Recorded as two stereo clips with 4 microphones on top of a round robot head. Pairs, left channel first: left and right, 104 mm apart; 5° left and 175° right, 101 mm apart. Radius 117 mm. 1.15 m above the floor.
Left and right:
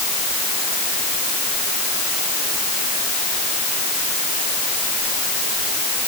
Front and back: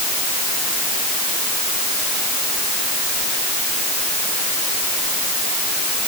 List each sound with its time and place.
Only background noise.